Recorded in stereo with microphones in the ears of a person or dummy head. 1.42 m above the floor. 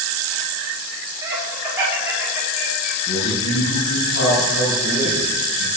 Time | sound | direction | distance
1.2 | laughter | 15° right (ahead or behind) | 5.5 m
3.1 | a man speaking | 65° left (ahead or behind) | 8 m